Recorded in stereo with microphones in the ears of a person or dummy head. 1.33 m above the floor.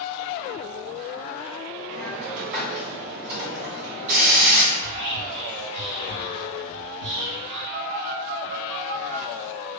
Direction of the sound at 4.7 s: 75° right (ahead or behind).